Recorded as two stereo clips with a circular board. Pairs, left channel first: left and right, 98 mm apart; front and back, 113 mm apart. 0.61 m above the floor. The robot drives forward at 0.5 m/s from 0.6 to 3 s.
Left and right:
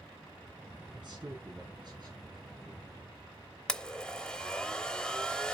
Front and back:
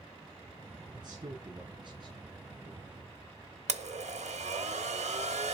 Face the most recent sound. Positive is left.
turn(degrees=170)